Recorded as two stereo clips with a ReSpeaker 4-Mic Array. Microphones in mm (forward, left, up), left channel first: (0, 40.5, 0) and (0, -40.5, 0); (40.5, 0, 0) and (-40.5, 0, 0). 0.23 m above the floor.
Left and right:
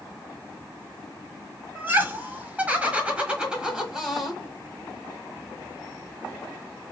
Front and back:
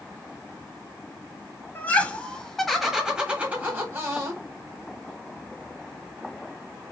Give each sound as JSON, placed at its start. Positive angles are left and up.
{"t": 1.8, "sound": "laughter", "azimuth_deg": -50, "distance_m": 1.4}